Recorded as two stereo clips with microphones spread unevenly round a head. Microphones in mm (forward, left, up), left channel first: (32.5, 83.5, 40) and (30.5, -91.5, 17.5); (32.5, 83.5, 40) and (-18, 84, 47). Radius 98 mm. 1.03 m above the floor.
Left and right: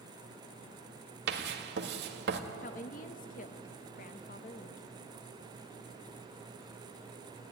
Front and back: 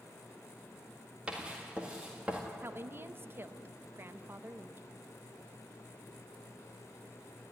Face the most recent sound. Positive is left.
turn(degrees=135)